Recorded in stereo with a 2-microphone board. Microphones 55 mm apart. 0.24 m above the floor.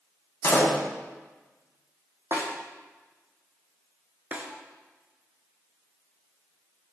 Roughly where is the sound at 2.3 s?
Right.